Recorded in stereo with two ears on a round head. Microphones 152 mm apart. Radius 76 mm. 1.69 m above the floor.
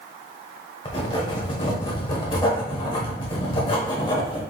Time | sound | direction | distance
0.8 | writing | 30° left (ahead or behind) | 1.1 m